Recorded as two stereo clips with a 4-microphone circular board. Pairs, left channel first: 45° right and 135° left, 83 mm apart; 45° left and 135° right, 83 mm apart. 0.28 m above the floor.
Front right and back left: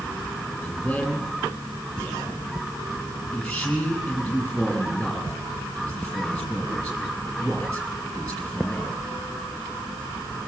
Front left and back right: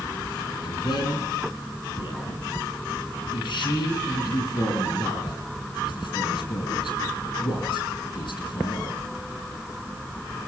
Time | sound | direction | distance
0.6 | a man speaking | 35° left | 7.5 m